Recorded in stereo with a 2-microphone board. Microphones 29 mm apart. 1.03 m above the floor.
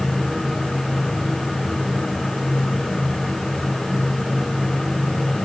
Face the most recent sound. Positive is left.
No sound to turn to.